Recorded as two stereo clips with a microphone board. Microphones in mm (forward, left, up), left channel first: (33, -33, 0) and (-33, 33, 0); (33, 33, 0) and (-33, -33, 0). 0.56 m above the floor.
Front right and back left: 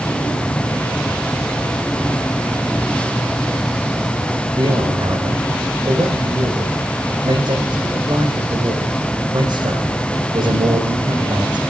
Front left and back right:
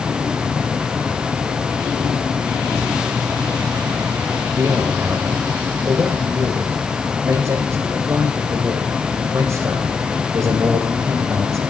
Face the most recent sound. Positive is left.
turn(degrees=170)